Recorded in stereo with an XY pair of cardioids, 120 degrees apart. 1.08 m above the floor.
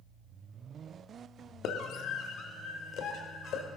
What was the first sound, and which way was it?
A scream, 70° left.